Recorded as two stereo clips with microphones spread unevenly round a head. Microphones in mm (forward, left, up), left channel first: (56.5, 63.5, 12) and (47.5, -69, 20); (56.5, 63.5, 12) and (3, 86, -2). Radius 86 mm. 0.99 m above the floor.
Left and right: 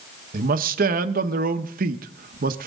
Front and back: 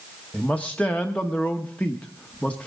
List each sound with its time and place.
0.3 s a man speaking: 110° right, 0.9 m